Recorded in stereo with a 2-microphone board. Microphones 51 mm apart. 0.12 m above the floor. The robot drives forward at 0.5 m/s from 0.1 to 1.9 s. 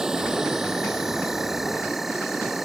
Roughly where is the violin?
I don't hear a violin.